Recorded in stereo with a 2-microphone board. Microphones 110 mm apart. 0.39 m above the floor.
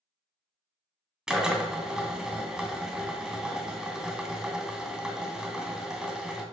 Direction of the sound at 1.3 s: 5° right (ahead or behind).